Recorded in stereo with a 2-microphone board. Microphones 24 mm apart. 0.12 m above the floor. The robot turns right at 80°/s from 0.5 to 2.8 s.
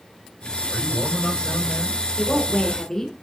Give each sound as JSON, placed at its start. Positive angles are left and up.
{"t": 0.7, "sound": "a man speaking", "azimuth_deg": -30, "distance_m": 3.0}
{"t": 2.2, "sound": "a woman speaking", "side_deg": 10, "distance_m": 1.5}